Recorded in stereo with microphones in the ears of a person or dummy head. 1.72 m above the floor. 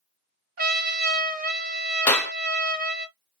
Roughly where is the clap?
Centre.